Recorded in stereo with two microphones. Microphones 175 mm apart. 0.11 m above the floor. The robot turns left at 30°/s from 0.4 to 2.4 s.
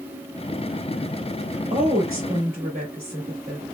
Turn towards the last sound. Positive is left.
turn(degrees=-50)  # may be behind; listen again after turning